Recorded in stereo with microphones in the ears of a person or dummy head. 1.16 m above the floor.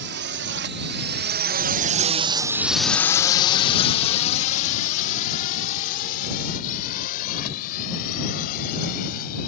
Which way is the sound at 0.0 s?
55° right (ahead or behind).